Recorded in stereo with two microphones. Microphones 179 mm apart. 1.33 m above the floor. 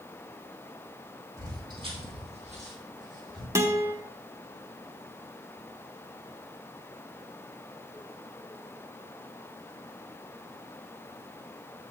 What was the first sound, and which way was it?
Footsteps, 20° right (ahead or behind).